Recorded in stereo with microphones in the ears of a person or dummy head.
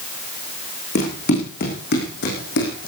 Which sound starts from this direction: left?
Running footsteps, at 0.9 s.